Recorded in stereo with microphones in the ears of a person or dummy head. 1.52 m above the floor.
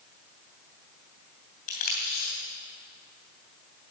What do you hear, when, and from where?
1.7 s tape being pulled: 40° left (ahead or behind), 2.5 m